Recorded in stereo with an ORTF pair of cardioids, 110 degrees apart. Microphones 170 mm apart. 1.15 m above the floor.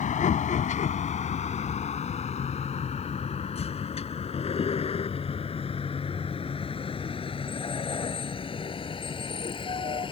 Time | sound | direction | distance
0.0 | a vehicle | 45° left | ?